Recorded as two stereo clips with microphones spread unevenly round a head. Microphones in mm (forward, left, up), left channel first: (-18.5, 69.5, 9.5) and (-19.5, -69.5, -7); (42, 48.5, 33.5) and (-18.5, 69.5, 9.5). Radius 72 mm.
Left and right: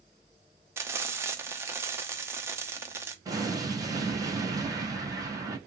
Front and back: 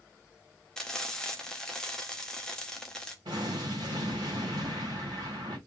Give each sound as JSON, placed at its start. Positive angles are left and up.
{"t": 0.8, "sound": "frying", "azimuth_deg": -125, "distance_m": 0.9}
{"t": 3.2, "sound": "an explosion", "azimuth_deg": -155, "distance_m": 3.0}